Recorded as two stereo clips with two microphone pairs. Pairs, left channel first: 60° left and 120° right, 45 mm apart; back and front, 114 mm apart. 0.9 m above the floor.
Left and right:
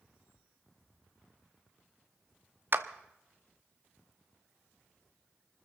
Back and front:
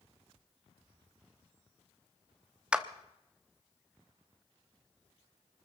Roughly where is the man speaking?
I don't hear a man speaking.